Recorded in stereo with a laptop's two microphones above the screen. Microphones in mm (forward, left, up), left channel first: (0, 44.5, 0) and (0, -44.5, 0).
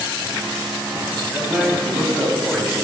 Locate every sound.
1.3 s a man speaking: 5° right (ahead or behind), 6 m